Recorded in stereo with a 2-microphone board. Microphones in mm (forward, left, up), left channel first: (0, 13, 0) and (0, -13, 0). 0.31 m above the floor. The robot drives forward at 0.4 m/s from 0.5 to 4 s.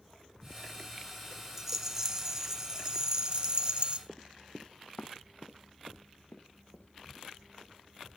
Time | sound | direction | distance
1.6 | a rattle | 20° right (ahead or behind) | 1.5 m
4.1 | running footsteps | 15° right (ahead or behind) | 0.7 m